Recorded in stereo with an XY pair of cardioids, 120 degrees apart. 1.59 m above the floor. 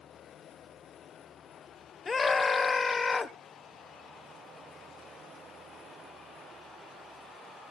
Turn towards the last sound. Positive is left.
turn(degrees=25)